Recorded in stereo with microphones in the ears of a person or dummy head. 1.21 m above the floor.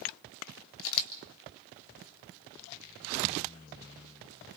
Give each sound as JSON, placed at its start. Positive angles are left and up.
{"t": 0.8, "sound": "a camera shutter", "side_deg": 75, "distance_m": 1.8}